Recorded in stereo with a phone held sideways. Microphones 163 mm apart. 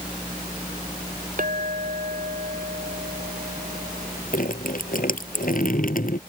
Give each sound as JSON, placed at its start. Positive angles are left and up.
{"t": 1.4, "sound": "a clink", "side_deg": -55}
{"t": 4.3, "sound": "dripping", "side_deg": 60}